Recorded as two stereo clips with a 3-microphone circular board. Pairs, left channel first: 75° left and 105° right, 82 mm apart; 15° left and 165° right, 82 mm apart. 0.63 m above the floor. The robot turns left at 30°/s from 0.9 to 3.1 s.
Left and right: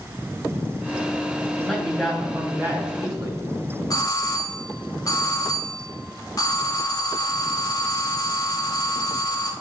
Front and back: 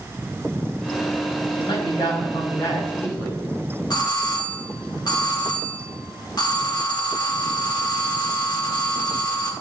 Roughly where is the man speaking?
Ahead.